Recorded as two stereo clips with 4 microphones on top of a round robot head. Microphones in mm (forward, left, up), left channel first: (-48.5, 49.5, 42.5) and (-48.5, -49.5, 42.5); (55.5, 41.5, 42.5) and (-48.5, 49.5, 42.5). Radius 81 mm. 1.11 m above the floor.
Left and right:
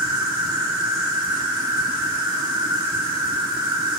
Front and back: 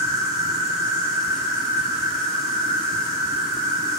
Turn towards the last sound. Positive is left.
turn(degrees=-130)